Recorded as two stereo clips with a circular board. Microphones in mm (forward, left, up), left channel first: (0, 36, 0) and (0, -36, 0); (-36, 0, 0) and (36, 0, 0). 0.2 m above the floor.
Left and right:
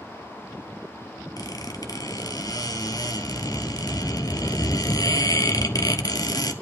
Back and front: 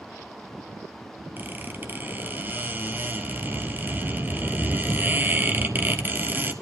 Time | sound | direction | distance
1.4 | a squeak | 60° left | 0.9 m